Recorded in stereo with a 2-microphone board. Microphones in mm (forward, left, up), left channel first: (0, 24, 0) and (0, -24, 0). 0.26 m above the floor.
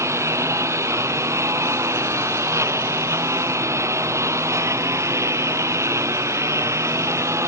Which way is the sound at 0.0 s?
80° right.